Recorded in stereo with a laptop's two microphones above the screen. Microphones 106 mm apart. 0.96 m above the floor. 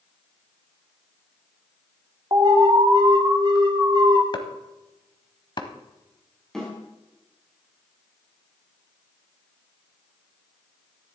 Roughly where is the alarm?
Right.